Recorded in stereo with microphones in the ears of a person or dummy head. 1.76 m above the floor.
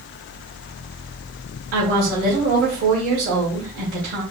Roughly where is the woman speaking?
Right.